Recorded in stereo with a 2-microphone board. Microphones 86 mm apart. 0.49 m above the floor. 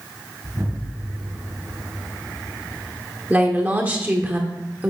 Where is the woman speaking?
20° right (ahead or behind), 1.2 m.